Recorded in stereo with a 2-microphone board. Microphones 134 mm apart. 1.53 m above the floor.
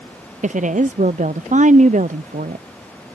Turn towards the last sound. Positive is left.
turn(degrees=-60)  # may be behind; listen again after turning